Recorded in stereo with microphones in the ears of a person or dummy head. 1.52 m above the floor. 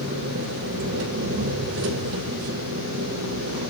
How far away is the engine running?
About 3.5 m.